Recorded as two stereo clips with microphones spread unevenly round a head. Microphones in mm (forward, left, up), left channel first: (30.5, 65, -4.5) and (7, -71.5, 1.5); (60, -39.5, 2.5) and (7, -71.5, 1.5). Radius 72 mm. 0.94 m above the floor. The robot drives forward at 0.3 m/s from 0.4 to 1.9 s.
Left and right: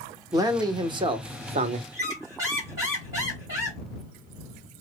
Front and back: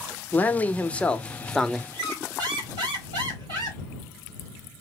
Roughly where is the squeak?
Behind.